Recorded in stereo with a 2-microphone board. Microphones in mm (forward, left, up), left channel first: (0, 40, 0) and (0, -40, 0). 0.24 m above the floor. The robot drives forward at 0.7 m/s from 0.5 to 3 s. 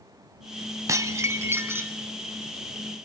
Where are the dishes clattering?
40° right (ahead or behind), 1.0 m; by 2.0 s 25° right (ahead or behind), 1.5 m.